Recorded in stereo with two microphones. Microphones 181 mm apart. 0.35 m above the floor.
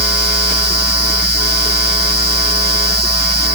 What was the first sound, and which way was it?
Only background noise.